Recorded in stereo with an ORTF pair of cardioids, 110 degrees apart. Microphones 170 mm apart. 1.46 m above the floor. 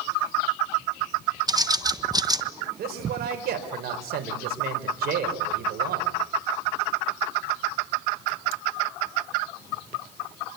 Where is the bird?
25° right, 1.2 m.